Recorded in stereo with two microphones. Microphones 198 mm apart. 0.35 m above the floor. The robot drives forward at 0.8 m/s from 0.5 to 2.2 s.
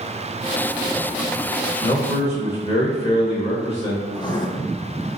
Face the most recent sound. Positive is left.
turn(degrees=20)  # may be behind; listen again after turning